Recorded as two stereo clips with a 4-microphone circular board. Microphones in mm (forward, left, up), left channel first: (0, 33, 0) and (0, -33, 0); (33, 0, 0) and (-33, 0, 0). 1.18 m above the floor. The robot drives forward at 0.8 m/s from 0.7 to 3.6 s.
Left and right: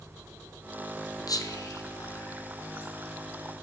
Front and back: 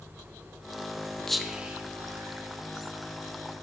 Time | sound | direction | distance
1.3 | whispering | 85° left | 0.7 m